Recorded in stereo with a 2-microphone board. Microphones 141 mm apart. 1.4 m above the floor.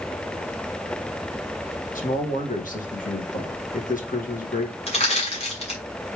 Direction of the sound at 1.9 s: 75° left (ahead or behind).